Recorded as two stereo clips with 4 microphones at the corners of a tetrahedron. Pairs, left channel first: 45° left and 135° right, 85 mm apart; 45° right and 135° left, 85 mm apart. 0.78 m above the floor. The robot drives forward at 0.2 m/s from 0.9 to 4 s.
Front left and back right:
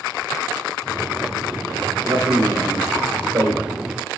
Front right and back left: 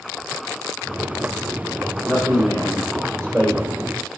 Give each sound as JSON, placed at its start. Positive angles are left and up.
{"t": 2.0, "sound": "a man speaking", "azimuth_deg": 180, "distance_m": 2.5}